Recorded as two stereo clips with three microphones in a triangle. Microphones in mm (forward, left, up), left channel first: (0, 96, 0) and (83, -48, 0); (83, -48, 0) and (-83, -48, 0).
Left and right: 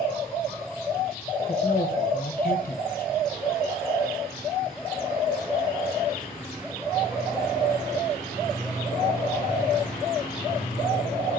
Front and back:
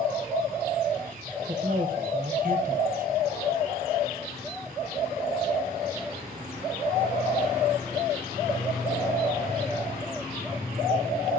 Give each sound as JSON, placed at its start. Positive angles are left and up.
{"t": 1.5, "sound": "a man speaking", "azimuth_deg": 150, "distance_m": 1.1}